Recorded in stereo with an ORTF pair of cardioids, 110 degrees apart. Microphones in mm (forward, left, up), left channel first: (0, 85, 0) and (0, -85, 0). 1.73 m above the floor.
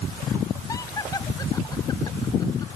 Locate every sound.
0.7 s laughter: 20° left; by 2.7 s 25° left